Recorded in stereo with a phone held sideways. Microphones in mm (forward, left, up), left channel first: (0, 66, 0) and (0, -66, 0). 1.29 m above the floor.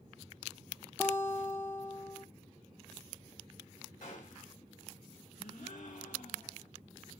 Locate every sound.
1.0 s a guitar: 20° left (ahead or behind), 0.7 m
4.0 s a gunshot: 75° left (ahead or behind), 3 m
5.4 s a gasp: 70° left (ahead or behind), 1.4 m